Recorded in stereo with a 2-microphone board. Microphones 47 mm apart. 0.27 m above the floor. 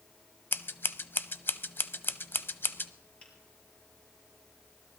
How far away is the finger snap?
About 5 m.